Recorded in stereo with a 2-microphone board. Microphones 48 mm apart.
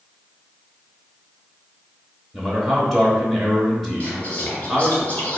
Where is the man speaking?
Centre (ahead or behind), 0.9 m.